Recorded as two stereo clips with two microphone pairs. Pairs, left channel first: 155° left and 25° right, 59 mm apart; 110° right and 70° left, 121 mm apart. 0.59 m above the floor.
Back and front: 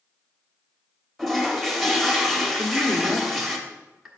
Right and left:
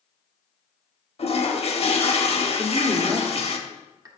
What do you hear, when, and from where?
1.2 s a toilet flushing: 115° right, 0.9 m
2.6 s a woman speaking: 60° left, 1.1 m